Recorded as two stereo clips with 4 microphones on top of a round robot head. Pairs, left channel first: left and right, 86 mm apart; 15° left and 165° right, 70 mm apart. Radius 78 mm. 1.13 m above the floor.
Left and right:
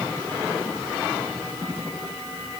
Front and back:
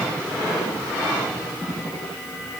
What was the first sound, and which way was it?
Only background noise.